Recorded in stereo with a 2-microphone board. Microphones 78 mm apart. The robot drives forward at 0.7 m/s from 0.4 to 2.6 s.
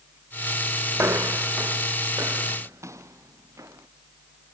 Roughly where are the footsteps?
Right.